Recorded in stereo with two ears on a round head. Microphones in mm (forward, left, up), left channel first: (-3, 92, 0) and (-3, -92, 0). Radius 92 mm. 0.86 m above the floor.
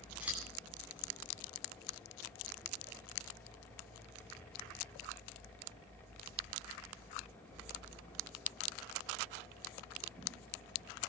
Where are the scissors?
5° right (ahead or behind), 9 m.